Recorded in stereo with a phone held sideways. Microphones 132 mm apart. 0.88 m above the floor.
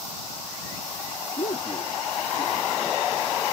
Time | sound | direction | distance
1.4 | a man speaking | 70° left (ahead or behind) | ?